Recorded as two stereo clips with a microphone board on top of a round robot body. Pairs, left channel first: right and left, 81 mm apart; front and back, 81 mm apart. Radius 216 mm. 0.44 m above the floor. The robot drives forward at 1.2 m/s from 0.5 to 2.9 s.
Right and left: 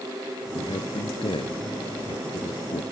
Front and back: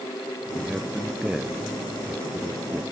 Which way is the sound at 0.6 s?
95° right.